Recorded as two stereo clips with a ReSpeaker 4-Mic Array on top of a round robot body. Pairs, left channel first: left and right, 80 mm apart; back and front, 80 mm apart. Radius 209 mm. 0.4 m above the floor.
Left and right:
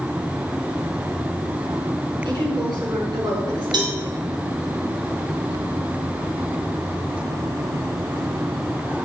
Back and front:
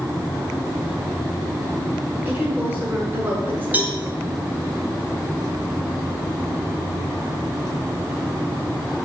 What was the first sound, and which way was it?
A woman speaking, 65° right.